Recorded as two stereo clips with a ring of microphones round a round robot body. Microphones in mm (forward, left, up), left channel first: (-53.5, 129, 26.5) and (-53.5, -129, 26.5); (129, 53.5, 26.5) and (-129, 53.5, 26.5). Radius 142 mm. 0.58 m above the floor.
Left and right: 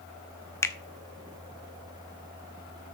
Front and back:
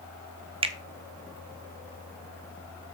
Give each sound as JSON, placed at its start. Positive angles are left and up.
{"t": 0.6, "sound": "a finger snap", "azimuth_deg": 155, "distance_m": 0.8}